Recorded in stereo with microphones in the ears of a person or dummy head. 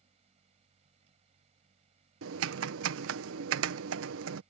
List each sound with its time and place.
0.0 s a fan: 35° right (ahead or behind)
2.2 s typing on a keyboard: 80° right